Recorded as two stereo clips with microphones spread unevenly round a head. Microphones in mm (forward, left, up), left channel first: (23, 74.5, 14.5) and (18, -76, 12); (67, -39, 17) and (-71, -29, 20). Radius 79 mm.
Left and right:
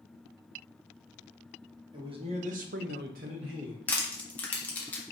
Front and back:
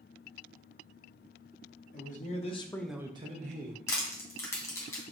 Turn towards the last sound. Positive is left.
turn(degrees=30)